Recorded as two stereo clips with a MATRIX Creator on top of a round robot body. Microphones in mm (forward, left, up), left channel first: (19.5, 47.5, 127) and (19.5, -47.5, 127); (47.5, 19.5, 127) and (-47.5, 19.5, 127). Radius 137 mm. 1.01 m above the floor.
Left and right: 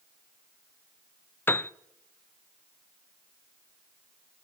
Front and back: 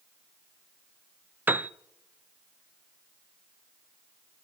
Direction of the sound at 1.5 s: 130° left.